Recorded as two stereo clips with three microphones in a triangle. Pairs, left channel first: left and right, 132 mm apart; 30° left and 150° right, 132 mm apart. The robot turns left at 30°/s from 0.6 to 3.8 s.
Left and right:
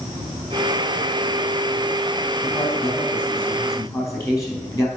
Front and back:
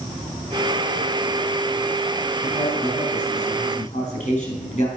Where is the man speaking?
65° left, 3.5 m; by 4.9 s 25° left, 3.5 m.